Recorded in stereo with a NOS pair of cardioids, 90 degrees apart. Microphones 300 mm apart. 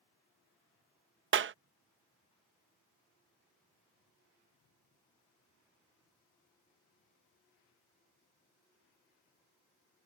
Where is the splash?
I don't hear a splash.